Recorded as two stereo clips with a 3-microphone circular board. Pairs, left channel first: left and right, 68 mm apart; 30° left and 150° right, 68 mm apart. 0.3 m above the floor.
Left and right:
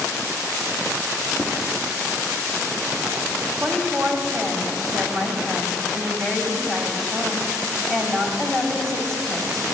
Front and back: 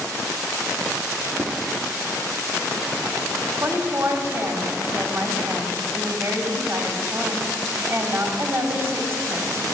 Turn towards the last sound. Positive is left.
turn(degrees=170)